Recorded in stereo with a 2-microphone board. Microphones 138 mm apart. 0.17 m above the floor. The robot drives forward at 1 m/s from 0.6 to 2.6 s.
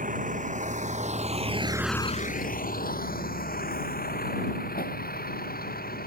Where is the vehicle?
65° right (ahead or behind); by 6.1 s 85° left.